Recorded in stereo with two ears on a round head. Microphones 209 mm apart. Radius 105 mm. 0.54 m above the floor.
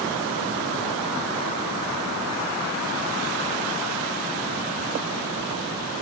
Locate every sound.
Only background noise.